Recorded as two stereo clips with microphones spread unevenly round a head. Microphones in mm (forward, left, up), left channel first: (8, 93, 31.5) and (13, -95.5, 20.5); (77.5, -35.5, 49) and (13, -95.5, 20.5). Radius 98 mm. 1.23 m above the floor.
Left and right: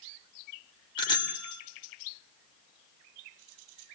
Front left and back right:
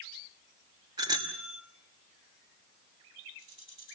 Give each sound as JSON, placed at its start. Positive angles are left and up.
{"t": 1.0, "sound": "a bicycle bell", "azimuth_deg": 160, "distance_m": 3.0}